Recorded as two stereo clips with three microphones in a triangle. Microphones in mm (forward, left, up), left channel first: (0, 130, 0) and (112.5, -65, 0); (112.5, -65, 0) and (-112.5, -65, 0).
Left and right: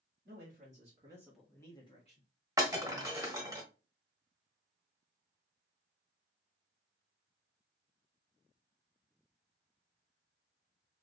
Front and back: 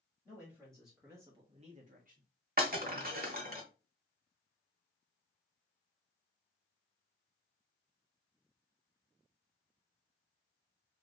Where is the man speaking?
70° right, 1.5 m; by 2.3 s 155° left, 1.4 m.